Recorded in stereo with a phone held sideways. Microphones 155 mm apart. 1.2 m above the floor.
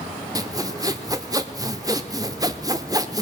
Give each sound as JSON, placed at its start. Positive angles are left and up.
{"t": 0.3, "sound": "sawing", "side_deg": -25, "distance_m": 0.8}